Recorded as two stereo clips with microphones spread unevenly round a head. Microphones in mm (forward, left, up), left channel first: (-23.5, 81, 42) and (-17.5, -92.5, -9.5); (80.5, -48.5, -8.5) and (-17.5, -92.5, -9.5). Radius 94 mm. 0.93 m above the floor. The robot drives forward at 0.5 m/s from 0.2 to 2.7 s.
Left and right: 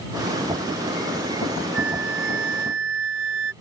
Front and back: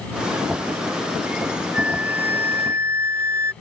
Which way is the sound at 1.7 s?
75° right.